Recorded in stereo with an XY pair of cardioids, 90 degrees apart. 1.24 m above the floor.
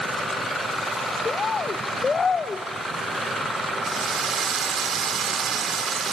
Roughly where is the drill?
Ahead right.